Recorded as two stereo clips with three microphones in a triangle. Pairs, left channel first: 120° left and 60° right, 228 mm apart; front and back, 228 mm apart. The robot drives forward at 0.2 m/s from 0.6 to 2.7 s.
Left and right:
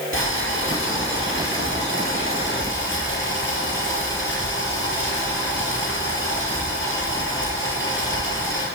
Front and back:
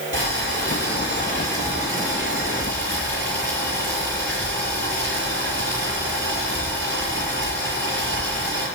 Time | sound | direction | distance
0.1 | boiling | 150° left | 5 m